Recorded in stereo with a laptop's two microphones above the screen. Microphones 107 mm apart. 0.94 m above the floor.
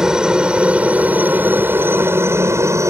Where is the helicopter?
5° right (ahead or behind); by 2.9 s 30° right (ahead or behind).